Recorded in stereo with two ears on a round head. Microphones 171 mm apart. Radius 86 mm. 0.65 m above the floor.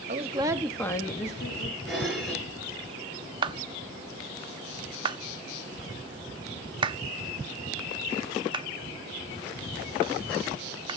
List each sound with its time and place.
0.1 s a woman speaking: 40° right (ahead or behind), 1.4 m; by 1.8 s 55° left (ahead or behind), 1.9 m
1.9 s dishes clattering: centre (ahead or behind), 6.5 m
3.4 s a clap: 25° right (ahead or behind), 0.8 m